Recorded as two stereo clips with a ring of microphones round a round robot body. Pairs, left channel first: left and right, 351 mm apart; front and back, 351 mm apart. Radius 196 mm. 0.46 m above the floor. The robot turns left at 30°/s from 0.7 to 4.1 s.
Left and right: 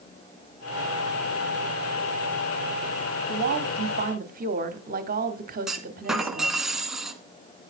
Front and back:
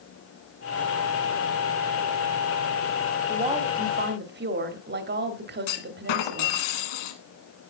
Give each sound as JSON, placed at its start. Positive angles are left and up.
{"t": 3.3, "sound": "a woman speaking", "azimuth_deg": -115, "distance_m": 1.3}
{"t": 5.7, "sound": "a clunk", "azimuth_deg": 0, "distance_m": 1.4}